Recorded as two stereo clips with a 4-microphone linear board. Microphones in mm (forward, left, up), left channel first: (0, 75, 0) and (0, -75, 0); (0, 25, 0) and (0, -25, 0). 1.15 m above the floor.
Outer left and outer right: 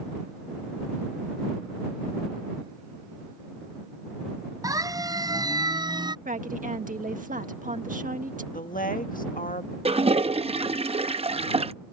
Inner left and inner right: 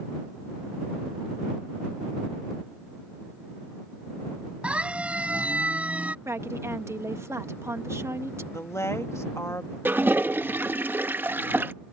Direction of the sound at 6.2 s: 65° right (ahead or behind).